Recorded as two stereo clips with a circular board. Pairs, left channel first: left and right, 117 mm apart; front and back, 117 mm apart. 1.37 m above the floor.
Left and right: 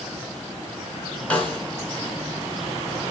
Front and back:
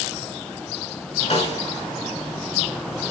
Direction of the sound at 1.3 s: 10° left.